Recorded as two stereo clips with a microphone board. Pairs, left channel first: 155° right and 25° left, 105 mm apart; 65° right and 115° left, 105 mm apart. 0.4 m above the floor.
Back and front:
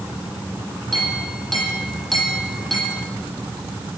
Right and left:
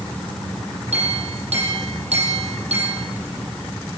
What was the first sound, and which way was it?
A clink, 115° left.